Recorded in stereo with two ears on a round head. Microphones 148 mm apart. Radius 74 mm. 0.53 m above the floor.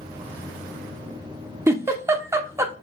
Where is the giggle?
15° right (ahead or behind), 0.5 m.